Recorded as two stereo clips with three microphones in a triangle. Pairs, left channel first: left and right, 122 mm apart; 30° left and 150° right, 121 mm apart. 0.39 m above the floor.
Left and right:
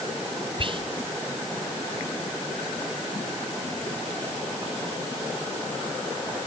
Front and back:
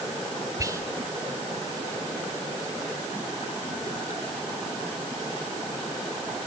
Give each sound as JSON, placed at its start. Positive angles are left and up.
{"t": 0.6, "sound": "whispering", "azimuth_deg": -100, "distance_m": 1.4}